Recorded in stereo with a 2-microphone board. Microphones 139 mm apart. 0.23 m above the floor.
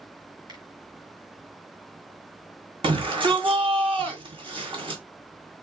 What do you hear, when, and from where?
0.5 s a finger snap: 30° right (ahead or behind), 1.9 m
2.8 s a shout: 40° right (ahead or behind), 1.8 m